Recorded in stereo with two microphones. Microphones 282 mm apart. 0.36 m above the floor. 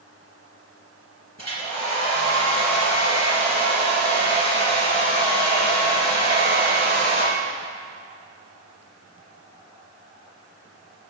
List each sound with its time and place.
1.4 s a hair dryer: 70° left (ahead or behind), 3.5 m